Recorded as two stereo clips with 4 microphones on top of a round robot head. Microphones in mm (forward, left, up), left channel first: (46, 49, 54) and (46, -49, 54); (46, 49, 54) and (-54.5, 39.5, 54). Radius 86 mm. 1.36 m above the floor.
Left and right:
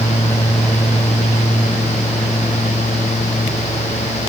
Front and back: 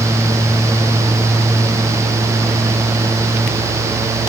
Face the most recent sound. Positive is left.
No sound to turn to.